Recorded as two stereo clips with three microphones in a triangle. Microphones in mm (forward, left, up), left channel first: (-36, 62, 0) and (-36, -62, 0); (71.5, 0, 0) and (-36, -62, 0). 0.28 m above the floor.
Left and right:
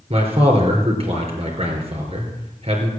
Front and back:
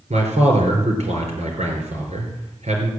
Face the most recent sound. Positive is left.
turn(degrees=-125)